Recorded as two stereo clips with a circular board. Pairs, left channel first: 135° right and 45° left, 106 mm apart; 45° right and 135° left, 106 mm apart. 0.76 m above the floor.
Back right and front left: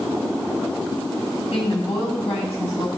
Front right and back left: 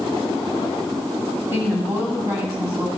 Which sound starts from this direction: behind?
A woman speaking, at 1.5 s.